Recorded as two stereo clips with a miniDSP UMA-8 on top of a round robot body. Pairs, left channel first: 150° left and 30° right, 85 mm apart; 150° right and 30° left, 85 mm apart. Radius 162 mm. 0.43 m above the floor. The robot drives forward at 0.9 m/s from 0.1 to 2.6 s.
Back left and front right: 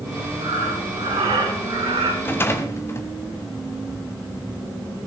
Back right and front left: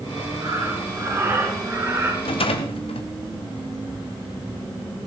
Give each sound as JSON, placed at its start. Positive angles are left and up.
{"t": 0.4, "sound": "breathing", "azimuth_deg": -25, "distance_m": 6.5}
{"t": 2.2, "sound": "a rattle", "azimuth_deg": -140, "distance_m": 1.3}